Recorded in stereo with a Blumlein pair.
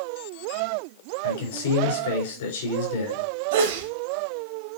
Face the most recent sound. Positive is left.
turn(degrees=-55)